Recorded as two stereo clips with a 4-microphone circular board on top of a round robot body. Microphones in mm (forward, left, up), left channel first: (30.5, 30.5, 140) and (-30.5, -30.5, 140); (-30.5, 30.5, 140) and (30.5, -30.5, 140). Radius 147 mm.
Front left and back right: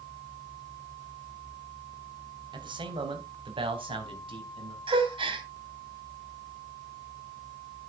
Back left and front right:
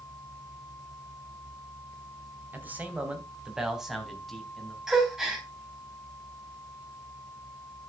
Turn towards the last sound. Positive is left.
turn(degrees=-130)